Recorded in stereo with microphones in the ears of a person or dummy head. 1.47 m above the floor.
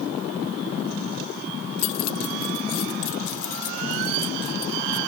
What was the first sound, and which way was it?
Keys jangling, 80° left.